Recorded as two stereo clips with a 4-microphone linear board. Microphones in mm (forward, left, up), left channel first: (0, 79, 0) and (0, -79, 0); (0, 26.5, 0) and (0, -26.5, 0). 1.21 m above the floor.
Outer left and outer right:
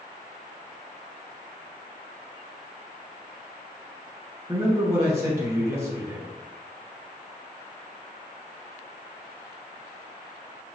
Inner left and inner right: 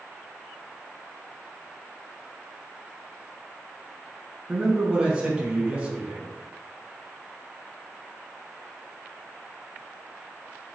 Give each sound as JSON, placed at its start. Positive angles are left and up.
{"t": 4.5, "sound": "a man speaking", "side_deg": -20, "distance_m": 1.3}